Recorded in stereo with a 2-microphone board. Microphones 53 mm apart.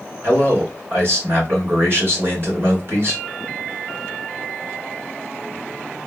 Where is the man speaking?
45° right (ahead or behind), 2.0 m.